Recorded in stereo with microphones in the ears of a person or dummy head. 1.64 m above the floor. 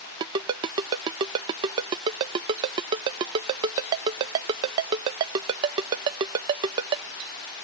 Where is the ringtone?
20° right (ahead or behind).